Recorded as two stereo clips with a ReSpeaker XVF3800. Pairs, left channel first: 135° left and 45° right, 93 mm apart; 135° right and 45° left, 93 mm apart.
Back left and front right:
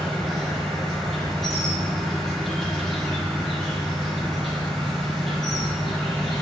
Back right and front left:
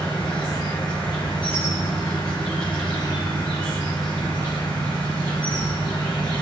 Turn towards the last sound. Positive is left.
turn(degrees=-140)